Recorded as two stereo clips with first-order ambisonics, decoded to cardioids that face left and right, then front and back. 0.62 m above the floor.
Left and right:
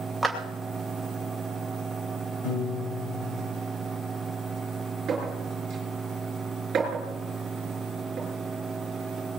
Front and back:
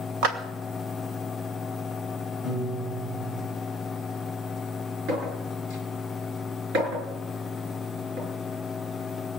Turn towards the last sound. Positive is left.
turn(degrees=-145)